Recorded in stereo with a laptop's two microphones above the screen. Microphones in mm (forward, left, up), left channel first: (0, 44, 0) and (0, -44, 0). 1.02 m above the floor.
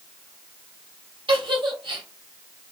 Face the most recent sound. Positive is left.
turn(degrees=-70)  # may be behind; listen again after turning